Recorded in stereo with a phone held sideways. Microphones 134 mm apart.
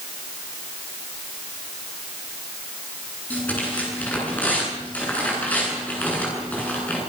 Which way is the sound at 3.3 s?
10° left (ahead or behind).